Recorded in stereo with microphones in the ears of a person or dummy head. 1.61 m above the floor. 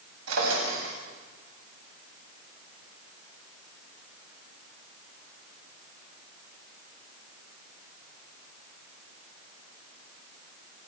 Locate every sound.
0.3 s a drawer: 85° right, 6.5 m